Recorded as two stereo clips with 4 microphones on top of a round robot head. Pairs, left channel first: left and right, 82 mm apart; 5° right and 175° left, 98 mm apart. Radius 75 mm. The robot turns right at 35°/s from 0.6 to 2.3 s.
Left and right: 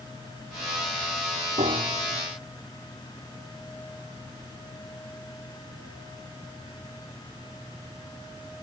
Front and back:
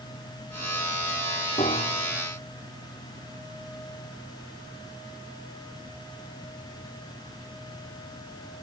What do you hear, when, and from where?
1.6 s a piano: 55° right; by 2.2 s 30° right